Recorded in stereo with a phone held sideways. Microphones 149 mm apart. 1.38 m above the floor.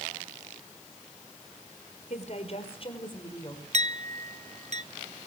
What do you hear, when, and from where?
2.1 s a woman speaking: 55° left (ahead or behind), 4.5 m; by 3.6 s 30° left (ahead or behind), 5 m
3.7 s a clink: 50° right (ahead or behind), 1.1 m